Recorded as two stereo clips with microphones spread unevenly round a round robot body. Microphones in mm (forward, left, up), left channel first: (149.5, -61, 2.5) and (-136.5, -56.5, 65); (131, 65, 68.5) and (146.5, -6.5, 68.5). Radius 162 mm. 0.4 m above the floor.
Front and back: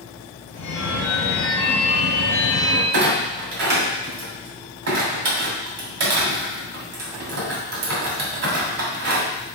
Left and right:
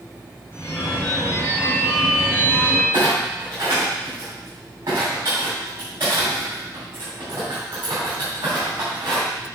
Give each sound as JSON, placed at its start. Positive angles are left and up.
{"t": 0.5, "sound": "a phone ringing", "azimuth_deg": 50, "distance_m": 3.5}
{"t": 2.9, "sound": "a clunk", "azimuth_deg": -145, "distance_m": 2.5}